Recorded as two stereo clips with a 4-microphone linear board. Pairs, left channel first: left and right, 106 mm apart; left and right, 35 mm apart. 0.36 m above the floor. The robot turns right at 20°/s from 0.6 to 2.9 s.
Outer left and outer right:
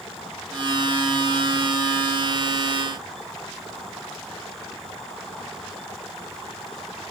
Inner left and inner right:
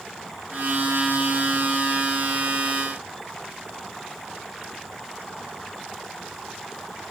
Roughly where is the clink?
I don't hear a clink.